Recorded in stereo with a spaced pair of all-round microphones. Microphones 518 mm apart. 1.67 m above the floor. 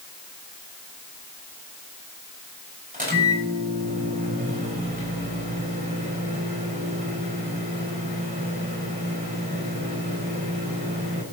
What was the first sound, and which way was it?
A microwave, 15° right (ahead or behind).